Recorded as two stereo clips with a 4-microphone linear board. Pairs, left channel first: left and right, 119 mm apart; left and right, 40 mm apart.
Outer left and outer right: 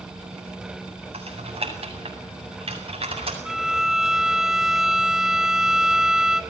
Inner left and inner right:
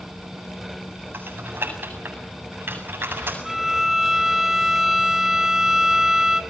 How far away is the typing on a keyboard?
About 8 m.